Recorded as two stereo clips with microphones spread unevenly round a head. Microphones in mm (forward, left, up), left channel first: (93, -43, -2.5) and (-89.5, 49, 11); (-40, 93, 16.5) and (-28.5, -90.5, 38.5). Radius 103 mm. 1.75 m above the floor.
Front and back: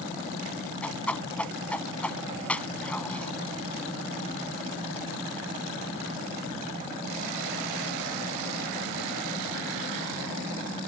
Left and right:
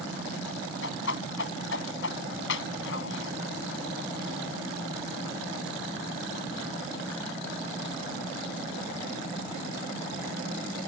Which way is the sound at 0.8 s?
60° left.